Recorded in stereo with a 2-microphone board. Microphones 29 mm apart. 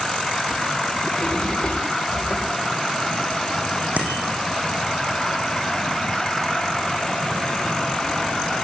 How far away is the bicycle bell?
About 6.5 m.